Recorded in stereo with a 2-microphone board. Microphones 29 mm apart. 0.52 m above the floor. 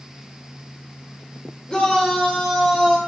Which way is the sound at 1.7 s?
30° left (ahead or behind).